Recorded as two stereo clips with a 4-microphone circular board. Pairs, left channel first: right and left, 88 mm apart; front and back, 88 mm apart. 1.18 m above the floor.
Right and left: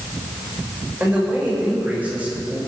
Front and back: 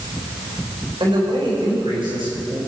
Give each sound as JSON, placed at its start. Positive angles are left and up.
{"t": 1.0, "sound": "a man speaking", "azimuth_deg": 160, "distance_m": 6.0}